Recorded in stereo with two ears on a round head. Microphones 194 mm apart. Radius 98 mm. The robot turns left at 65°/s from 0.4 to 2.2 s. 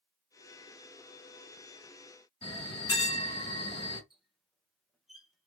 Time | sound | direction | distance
2.4 | a bell | 25° left (ahead or behind) | 2.0 m
4.1 | a squeak | centre (ahead or behind) | 0.5 m